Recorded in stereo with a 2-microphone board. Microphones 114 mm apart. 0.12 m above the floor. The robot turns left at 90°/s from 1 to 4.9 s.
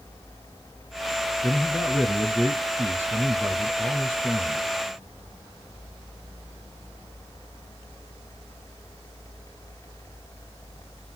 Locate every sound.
1.4 s a man speaking: 10° left (ahead or behind), 1.3 m; by 4.6 s 25° left (ahead or behind), 1.3 m